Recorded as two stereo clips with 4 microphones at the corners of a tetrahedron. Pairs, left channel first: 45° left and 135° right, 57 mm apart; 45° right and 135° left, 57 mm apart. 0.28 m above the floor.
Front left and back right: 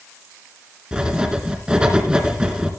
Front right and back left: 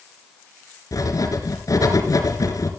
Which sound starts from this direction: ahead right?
Writing, at 0.9 s.